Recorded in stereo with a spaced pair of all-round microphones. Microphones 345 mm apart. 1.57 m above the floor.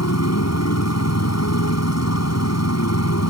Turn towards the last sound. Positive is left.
turn(degrees=50)  # may be behind; listen again after turning